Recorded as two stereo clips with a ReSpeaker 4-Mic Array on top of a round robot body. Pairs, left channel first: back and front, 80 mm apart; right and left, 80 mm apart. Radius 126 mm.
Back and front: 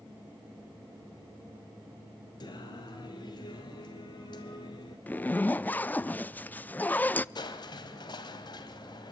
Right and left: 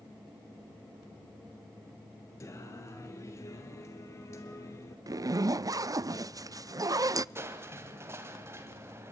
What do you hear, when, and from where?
2.4 s singing: 145° right, 2.0 m
5.1 s a zipper: 115° left, 0.5 m
7.3 s crushing: 150° left, 1.8 m